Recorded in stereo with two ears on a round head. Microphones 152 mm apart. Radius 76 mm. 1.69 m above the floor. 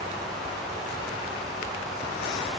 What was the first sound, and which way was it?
Only background noise.